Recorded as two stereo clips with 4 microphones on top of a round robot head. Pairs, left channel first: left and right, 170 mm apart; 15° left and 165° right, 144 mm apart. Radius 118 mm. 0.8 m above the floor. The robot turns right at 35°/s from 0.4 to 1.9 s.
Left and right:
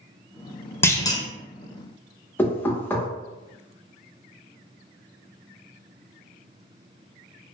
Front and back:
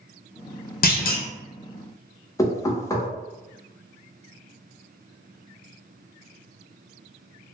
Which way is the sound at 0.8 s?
15° left.